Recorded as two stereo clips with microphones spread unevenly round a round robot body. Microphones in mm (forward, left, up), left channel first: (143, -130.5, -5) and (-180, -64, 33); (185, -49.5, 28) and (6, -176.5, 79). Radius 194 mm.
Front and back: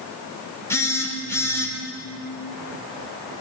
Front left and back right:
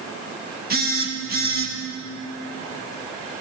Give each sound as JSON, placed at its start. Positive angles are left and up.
{"t": 0.7, "sound": "a phone buzzing", "azimuth_deg": -95, "distance_m": 2.0}